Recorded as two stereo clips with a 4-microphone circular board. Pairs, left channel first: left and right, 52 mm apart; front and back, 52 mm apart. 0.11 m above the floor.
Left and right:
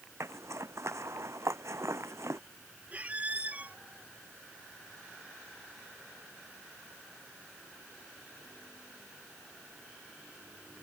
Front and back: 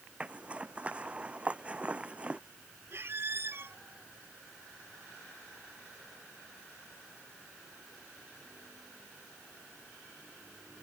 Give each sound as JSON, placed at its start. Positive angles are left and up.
{"t": 0.2, "sound": "a zipper", "azimuth_deg": -115}
{"t": 2.9, "sound": "a squeak", "azimuth_deg": -145}